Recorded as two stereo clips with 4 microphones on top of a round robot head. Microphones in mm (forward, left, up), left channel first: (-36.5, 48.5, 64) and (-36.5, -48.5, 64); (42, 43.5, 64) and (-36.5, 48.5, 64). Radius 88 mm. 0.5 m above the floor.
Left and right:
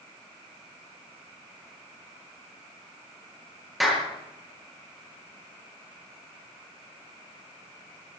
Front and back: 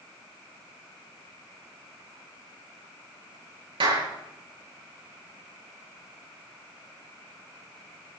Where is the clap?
Straight behind, 7.5 m.